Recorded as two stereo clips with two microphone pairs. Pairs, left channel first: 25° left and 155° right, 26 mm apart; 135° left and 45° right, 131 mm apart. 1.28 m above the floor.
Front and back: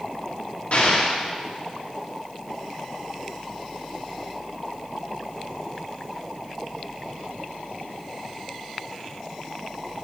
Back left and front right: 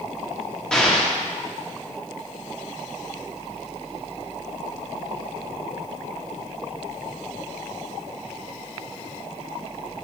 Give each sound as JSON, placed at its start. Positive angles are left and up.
{"t": 0.7, "sound": "an explosion", "azimuth_deg": 55, "distance_m": 1.2}